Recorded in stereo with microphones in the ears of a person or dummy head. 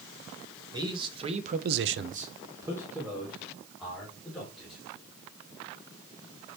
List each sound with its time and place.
0.7 s a man speaking: 25° right (ahead or behind), 1.7 m; by 4.8 s 5° left (ahead or behind), 4 m